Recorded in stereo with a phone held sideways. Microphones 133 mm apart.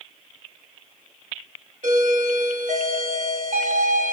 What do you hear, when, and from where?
1.8 s a doorbell: 75° right (ahead or behind), 2.5 m